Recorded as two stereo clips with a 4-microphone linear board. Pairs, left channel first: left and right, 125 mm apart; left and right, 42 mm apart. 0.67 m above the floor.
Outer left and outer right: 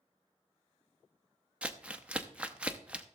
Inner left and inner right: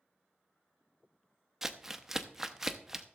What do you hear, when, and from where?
1.6 s crumpling: 10° right (ahead or behind), 0.7 m